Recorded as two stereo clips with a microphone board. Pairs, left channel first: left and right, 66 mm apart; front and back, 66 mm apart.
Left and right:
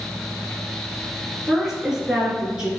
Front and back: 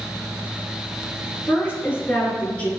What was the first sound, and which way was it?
A woman speaking, 15° right.